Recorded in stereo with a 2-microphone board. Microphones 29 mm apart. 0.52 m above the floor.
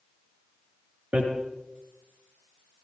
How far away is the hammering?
About 5.5 m.